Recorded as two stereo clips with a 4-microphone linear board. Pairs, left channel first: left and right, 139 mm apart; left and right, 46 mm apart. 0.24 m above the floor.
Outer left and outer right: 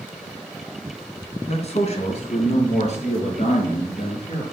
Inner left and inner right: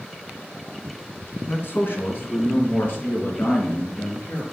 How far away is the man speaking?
About 2.5 m.